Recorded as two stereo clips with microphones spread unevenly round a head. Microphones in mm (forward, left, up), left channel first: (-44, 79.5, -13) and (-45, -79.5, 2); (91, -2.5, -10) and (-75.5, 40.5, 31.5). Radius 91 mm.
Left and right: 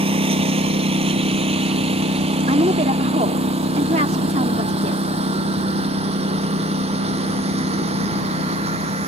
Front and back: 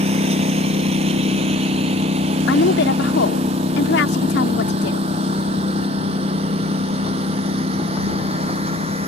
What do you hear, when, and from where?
0.0 s a lawn mower: 140° right; by 9.1 s 135° right
2.5 s a woman speaking: 35° right